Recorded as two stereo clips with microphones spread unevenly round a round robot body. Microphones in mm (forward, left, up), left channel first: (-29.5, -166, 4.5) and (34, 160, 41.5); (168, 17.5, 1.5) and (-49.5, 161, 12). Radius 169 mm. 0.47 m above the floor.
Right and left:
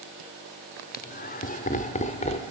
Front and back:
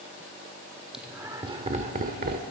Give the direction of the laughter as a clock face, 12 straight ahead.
4 o'clock.